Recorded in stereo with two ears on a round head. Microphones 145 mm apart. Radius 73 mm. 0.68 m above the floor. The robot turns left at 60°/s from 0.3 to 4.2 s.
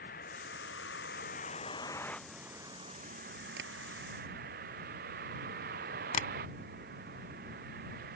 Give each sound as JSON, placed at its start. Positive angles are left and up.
{"t": 0.0, "sound": "a vehicle", "azimuth_deg": 120}
{"t": 3.6, "sound": "tapping", "side_deg": -80}
{"t": 6.1, "sound": "tapping", "side_deg": 50}